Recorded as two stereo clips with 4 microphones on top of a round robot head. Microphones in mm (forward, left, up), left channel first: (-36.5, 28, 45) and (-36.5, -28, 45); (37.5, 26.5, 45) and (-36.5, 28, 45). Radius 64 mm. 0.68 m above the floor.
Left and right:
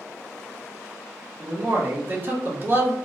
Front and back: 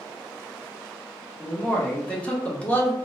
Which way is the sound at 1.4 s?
65° right.